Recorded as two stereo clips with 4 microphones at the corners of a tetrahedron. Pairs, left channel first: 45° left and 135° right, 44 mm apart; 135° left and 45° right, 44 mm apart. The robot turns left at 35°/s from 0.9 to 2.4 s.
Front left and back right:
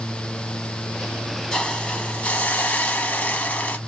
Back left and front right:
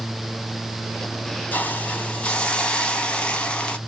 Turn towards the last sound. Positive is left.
turn(degrees=80)